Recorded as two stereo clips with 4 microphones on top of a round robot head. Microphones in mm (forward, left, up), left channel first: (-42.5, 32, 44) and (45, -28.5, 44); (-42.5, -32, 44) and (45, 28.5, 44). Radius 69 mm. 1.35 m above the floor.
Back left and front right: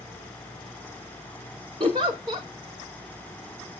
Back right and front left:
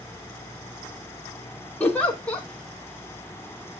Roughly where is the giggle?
Right.